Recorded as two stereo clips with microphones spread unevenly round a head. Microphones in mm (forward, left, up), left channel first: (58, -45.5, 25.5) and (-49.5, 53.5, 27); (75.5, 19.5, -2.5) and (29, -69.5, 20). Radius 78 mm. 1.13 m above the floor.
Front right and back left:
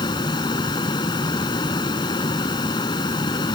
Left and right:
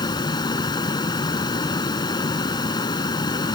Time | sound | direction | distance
0.0 | a fan | 20° left | ?